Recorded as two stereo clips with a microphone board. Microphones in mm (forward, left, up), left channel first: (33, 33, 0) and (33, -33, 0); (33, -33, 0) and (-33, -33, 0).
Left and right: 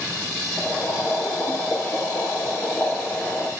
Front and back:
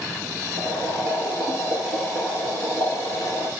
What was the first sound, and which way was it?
Boiling, 35° left.